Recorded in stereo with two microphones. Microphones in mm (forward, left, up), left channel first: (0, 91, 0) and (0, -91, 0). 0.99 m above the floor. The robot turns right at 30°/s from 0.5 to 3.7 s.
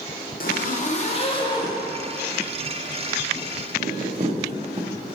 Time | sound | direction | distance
0.4 | a zipper | 55° left (ahead or behind) | 0.6 m